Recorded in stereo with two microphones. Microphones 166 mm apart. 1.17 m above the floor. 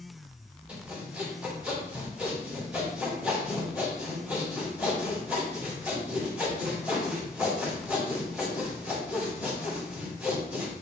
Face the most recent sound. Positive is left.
turn(degrees=-10)  # may be behind; listen again after turning